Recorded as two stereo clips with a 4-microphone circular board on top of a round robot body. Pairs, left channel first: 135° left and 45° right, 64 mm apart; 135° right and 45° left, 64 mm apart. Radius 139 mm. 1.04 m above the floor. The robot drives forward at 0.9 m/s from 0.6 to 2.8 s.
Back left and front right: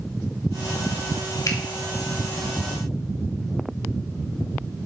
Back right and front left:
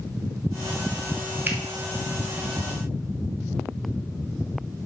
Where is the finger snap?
105° left, 1.5 m; by 1.6 s 110° left, 1.5 m.